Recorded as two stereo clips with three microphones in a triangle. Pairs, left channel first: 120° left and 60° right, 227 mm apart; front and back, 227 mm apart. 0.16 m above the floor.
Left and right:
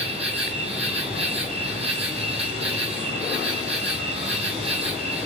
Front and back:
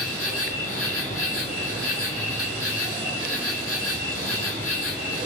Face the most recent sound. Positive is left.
turn(degrees=5)